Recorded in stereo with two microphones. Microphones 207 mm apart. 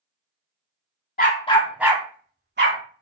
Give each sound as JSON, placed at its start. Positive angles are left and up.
{"t": 1.2, "sound": "a dog barking", "side_deg": 45, "distance_m": 0.7}